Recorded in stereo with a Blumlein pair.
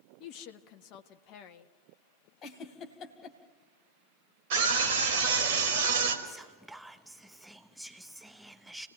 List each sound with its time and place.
0.2 s a woman speaking: 40° left, 1.5 m
2.4 s a giggle: 30° left, 2.5 m
4.5 s a scream: 50° right, 4.5 m
6.2 s whispering: straight ahead, 0.7 m